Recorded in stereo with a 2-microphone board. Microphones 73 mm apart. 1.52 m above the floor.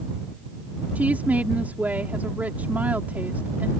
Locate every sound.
0.9 s a woman speaking: 20° right (ahead or behind)